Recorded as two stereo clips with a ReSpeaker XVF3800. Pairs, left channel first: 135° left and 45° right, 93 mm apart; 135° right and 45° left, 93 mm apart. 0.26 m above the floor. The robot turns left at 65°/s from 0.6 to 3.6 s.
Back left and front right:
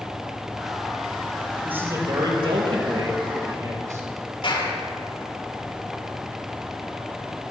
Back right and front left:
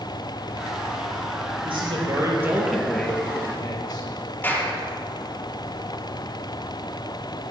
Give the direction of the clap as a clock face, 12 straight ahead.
7 o'clock.